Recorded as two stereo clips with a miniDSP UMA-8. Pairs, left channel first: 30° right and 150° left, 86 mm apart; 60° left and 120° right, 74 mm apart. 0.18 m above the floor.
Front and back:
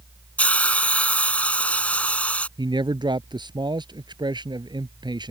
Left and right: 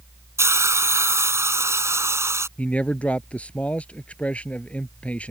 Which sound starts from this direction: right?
A hiss, at 0.4 s.